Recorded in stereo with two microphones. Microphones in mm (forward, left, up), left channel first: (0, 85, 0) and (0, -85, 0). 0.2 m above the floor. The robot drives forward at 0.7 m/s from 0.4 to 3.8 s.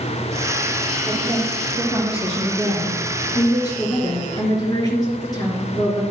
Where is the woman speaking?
15° left (ahead or behind), 5.5 m; by 6.0 s 20° left (ahead or behind), 4 m.